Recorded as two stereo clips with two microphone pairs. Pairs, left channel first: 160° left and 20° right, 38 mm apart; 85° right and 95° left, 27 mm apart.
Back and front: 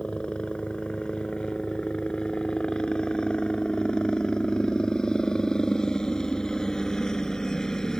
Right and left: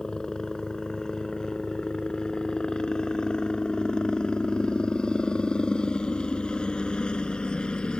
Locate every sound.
0.0 s a helicopter: 140° right; by 8.0 s 125° right